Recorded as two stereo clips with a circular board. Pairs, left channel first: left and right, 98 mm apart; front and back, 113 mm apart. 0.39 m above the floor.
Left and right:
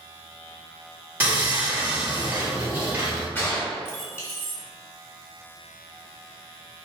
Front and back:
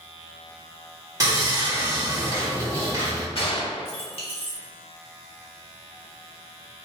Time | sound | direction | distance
1.2 | sawing | 145° right | 1.7 m
3.4 | a gunshot | 20° left | 1.2 m